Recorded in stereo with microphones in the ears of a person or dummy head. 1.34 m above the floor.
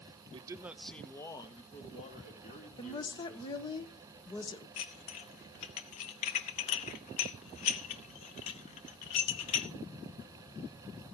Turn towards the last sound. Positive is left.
turn(degrees=30)  # may be behind; listen again after turning